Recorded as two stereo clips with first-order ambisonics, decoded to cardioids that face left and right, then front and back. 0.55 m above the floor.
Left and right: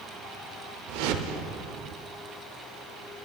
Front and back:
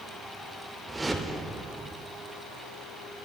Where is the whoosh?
100° right, 0.5 m.